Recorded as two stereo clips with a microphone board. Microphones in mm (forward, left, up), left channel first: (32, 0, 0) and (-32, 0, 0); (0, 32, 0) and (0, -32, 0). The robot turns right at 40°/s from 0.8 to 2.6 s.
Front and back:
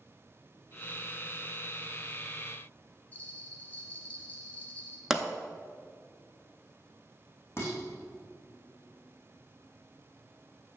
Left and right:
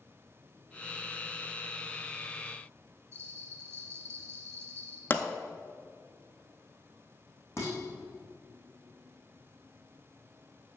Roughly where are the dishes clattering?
Ahead left.